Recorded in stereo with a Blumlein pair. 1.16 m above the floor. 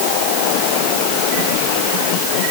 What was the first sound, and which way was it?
Only background noise.